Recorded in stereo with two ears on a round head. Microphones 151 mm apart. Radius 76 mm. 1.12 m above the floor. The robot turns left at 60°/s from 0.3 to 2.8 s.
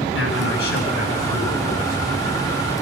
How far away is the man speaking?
About 8.5 m.